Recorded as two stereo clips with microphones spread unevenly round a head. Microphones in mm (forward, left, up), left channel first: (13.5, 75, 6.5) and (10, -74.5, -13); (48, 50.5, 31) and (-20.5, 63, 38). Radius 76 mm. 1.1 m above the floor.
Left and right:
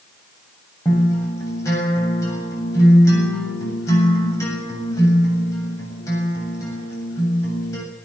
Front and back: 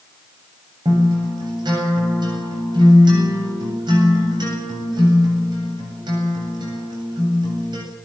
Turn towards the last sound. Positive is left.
turn(degrees=160)